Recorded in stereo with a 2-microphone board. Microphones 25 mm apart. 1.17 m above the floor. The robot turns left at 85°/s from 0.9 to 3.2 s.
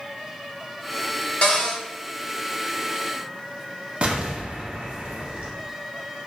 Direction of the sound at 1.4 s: 60° left.